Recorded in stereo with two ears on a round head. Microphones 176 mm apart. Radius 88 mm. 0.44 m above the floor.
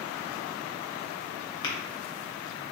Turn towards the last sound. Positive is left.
turn(degrees=25)  # may be behind; listen again after turning